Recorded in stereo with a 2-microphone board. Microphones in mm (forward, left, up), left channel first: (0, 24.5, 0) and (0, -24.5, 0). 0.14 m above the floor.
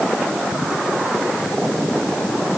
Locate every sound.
Only background noise.